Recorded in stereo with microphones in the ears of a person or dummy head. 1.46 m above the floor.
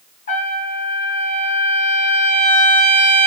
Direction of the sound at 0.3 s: 40° left (ahead or behind).